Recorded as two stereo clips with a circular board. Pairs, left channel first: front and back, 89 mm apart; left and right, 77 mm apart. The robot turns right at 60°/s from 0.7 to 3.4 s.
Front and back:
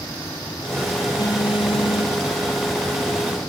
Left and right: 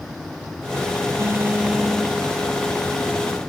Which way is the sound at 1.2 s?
40° right.